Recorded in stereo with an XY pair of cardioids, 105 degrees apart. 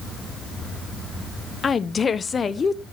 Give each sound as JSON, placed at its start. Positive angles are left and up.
{"t": 1.6, "sound": "a woman speaking", "azimuth_deg": 35, "distance_m": 1.1}